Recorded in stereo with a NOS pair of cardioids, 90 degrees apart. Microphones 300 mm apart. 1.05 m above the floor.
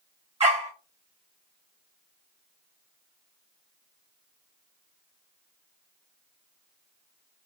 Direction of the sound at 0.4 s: 20° right.